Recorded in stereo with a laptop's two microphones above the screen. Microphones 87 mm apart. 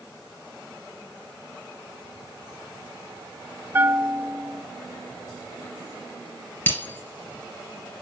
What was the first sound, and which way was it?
A bell, 25° right (ahead or behind).